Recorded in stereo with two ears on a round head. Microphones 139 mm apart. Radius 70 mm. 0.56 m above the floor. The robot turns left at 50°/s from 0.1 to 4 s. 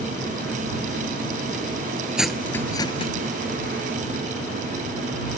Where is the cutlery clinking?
5° right (ahead or behind); by 3.1 s 40° left (ahead or behind).